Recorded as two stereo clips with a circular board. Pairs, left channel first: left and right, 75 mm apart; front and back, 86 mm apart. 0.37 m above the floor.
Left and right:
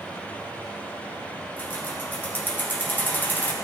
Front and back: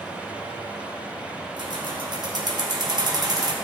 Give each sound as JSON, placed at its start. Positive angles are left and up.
{"t": 1.6, "sound": "keys jangling", "azimuth_deg": 150, "distance_m": 3.0}